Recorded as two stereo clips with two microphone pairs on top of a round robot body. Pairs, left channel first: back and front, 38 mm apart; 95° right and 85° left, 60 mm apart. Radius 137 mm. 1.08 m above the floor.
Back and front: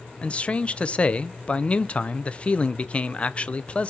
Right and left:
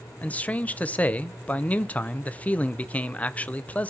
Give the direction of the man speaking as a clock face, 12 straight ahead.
5 o'clock.